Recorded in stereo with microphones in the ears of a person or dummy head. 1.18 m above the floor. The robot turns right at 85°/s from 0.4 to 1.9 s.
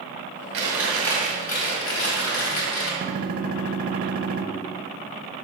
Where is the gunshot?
45° right (ahead or behind), 0.8 m.